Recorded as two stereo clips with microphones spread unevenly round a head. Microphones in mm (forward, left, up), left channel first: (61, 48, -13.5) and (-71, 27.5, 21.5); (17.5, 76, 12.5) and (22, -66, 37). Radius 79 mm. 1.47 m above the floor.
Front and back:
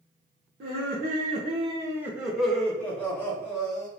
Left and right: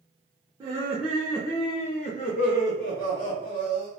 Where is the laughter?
160° right, 0.7 m; by 3.9 s 75° left, 1.5 m.